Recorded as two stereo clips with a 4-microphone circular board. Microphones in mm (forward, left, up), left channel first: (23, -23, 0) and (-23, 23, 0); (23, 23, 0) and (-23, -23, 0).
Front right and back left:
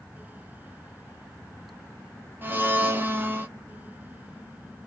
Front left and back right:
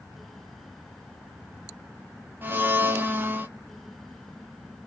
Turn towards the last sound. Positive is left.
turn(degrees=180)